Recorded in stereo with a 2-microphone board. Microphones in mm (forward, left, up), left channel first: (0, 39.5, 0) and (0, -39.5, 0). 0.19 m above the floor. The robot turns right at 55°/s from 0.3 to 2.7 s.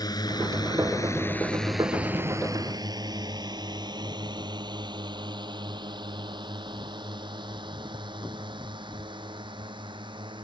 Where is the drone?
55° left (ahead or behind); by 10.4 s 80° right.